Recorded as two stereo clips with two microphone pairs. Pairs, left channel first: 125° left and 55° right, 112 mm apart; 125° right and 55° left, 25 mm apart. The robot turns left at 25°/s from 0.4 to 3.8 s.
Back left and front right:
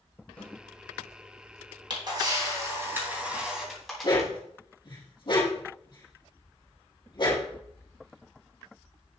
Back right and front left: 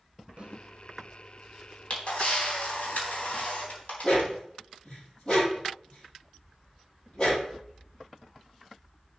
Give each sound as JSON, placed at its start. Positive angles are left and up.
{"t": 0.4, "sound": "a snare drum", "azimuth_deg": 50, "distance_m": 1.3}
{"t": 1.9, "sound": "a camera shutter", "azimuth_deg": -95, "distance_m": 3.5}
{"t": 4.0, "sound": "a dog barking", "azimuth_deg": 175, "distance_m": 4.5}